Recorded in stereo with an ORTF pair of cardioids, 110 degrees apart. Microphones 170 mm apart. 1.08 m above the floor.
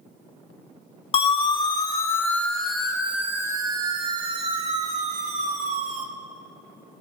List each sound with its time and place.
1.1 s a siren: 35° left, 2 m; by 6.0 s 55° right, 3 m